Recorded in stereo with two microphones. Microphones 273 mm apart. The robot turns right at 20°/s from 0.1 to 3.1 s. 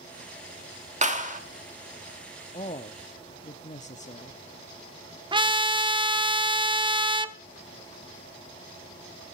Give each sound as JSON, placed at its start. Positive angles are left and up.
{"t": 1.0, "sound": "a clap", "side_deg": -30, "distance_m": 1.1}
{"t": 2.5, "sound": "a man speaking", "side_deg": 25, "distance_m": 0.6}
{"t": 5.3, "sound": "a trumpet", "side_deg": -20, "distance_m": 0.5}